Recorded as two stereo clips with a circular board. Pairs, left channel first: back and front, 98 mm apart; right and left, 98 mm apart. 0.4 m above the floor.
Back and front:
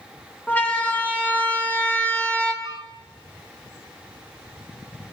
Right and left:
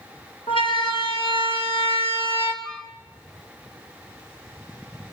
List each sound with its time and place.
0.5 s a siren: 110° right, 5 m; by 2.5 s 95° right, 4 m
2.6 s a flute: 5° right, 0.6 m